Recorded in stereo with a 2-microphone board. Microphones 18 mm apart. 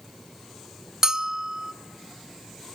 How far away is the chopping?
No chopping in this recording.